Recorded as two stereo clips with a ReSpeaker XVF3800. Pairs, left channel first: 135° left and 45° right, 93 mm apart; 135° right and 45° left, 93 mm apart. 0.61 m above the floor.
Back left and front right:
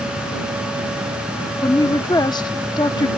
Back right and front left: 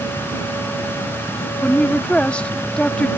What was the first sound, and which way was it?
A woman speaking, 150° left.